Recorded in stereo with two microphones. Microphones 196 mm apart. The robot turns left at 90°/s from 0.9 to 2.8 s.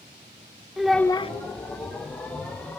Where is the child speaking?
Straight behind, 0.6 m; by 1.3 s 145° left, 0.6 m.